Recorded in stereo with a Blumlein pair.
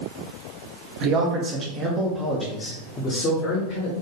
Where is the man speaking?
40° right, 1.2 m; by 3.9 s 45° left, 1.4 m.